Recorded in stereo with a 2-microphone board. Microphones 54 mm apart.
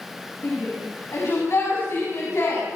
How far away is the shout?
About 6.5 m.